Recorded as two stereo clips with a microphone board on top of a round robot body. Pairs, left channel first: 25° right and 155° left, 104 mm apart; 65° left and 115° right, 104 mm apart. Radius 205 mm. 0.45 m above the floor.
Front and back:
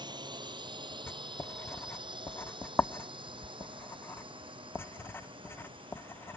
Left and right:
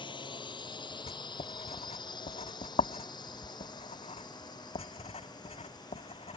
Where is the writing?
50° left.